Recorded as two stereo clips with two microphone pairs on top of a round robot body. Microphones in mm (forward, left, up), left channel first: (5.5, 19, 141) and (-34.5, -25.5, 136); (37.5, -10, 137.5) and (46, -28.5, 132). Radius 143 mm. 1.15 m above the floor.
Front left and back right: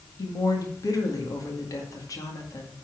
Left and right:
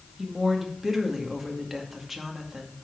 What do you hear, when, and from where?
0.2 s a woman speaking: 15° left, 2 m